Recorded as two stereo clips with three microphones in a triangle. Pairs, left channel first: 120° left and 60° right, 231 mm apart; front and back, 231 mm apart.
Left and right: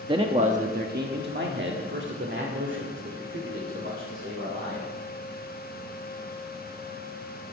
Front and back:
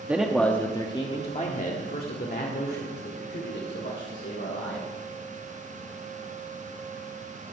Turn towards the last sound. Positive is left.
turn(degrees=-30)